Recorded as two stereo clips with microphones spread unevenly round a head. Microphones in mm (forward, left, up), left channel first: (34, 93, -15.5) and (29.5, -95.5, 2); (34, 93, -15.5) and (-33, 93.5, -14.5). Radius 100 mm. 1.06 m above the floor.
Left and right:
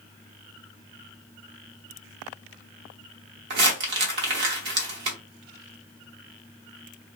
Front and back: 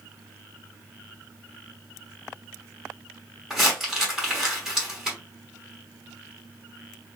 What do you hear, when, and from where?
3.5 s crumpling: 100° right, 1.0 m